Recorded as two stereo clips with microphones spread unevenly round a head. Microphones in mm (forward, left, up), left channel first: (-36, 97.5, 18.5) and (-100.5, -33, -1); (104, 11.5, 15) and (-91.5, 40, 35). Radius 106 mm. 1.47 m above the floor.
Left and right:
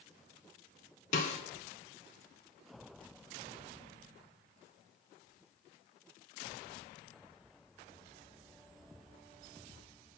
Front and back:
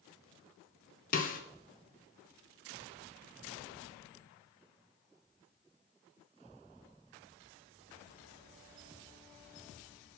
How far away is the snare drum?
About 0.8 m.